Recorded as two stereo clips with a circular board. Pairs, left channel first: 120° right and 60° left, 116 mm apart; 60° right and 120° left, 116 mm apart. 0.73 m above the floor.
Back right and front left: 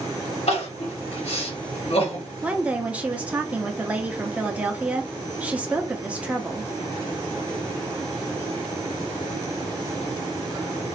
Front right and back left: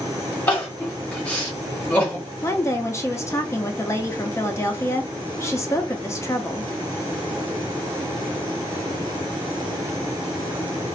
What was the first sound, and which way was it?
Crying, 135° right.